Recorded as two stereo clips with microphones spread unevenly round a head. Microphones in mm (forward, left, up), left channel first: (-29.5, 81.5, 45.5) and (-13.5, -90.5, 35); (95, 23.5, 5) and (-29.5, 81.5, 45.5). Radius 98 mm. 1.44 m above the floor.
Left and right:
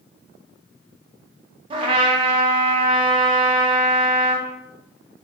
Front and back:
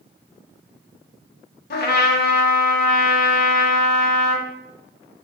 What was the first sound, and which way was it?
A trumpet, 20° right.